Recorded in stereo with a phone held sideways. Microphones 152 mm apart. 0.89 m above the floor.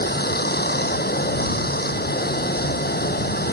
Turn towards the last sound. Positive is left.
turn(degrees=80)